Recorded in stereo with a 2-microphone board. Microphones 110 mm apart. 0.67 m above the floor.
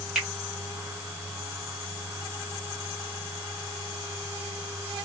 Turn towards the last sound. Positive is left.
turn(degrees=-5)  # may be behind; listen again after turning